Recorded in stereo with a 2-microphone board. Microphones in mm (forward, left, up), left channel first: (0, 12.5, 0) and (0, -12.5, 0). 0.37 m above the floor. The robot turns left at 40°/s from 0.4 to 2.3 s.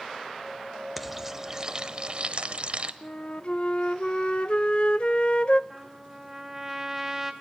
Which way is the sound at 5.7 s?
10° right (ahead or behind).